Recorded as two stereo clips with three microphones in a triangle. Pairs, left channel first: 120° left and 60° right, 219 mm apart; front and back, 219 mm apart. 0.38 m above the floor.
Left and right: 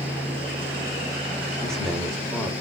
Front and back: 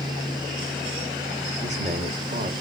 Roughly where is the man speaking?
Behind right.